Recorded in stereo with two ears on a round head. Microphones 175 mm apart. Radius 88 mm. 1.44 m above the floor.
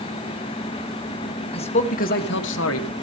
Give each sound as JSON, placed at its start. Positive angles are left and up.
{"t": 1.5, "sound": "a man speaking", "side_deg": 30, "distance_m": 1.4}